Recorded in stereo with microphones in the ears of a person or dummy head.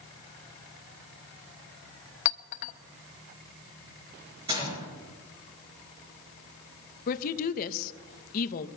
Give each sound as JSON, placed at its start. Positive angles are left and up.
{"t": 2.2, "sound": "a clink", "side_deg": 45, "distance_m": 0.7}
{"t": 4.5, "sound": "a gunshot", "side_deg": -20, "distance_m": 4.0}
{"t": 7.1, "sound": "a woman speaking", "side_deg": 45, "distance_m": 0.8}